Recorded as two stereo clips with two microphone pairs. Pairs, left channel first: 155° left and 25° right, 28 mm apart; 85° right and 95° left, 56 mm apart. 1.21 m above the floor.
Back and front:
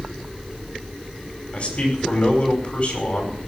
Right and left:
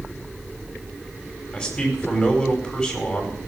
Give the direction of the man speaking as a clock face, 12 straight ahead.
6 o'clock.